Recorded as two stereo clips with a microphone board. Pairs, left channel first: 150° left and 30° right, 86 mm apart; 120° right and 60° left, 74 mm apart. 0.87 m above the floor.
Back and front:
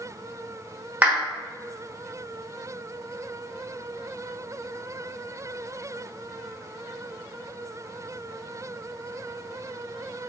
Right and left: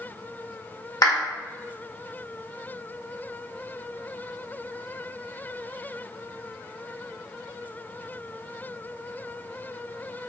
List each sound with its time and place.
1.0 s a clap: 100° right, 1.0 m